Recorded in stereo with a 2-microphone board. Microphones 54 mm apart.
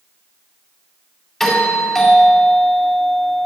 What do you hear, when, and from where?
1.4 s a doorbell: 5° left (ahead or behind), 2.5 m